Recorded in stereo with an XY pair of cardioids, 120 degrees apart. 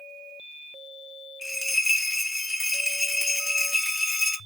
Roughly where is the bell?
Ahead.